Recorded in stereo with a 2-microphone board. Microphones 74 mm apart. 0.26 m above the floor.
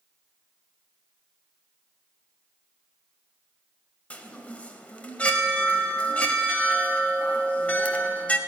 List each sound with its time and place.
4.1 s a chime: 20° left (ahead or behind), 0.9 m